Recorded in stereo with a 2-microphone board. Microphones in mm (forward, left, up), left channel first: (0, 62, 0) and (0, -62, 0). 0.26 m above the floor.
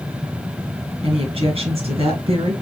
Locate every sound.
1.0 s a woman speaking: 50° right (ahead or behind), 3 m